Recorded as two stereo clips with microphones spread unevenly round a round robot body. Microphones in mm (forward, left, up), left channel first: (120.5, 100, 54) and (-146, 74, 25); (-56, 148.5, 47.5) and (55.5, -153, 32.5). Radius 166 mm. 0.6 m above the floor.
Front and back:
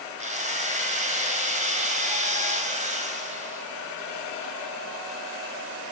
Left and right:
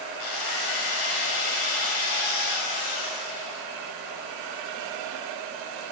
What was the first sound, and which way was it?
A drill, 125° left.